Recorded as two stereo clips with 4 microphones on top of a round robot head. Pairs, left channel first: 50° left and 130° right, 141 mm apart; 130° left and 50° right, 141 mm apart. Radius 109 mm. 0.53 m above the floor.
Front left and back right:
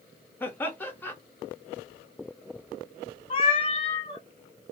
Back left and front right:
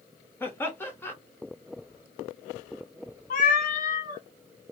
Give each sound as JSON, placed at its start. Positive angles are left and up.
{"t": 0.4, "sound": "laughter", "azimuth_deg": 95, "distance_m": 1.1}
{"t": 3.3, "sound": "a cat meowing", "azimuth_deg": 105, "distance_m": 0.6}